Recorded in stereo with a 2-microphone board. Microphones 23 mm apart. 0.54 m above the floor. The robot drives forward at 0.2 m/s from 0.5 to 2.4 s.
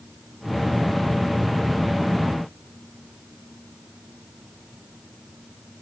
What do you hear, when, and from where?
Only background noise.